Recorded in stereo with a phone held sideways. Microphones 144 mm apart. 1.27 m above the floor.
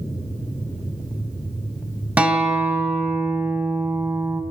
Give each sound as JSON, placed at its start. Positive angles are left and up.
{"t": 2.2, "sound": "a guitar", "side_deg": -10, "distance_m": 3.0}